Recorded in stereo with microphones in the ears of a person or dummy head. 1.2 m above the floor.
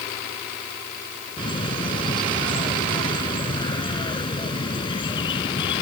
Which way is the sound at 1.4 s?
25° left (ahead or behind).